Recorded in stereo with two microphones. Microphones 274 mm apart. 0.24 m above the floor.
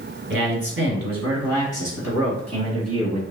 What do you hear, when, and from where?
0.3 s a man speaking: 45° right (ahead or behind), 1.6 m; by 3.2 s 65° right (ahead or behind), 2.5 m